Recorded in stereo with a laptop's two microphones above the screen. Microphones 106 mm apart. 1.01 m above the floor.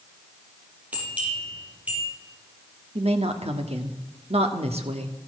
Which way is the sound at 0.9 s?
15° right (ahead or behind).